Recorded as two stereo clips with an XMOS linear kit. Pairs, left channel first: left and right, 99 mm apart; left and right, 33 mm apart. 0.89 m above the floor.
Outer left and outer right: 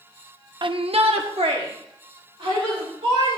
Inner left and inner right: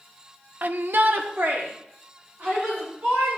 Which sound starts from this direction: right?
A shout, at 0.6 s.